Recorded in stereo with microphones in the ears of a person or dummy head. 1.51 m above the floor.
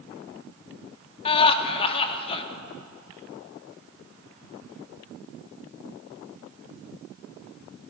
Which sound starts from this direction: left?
Laughter, at 1.2 s.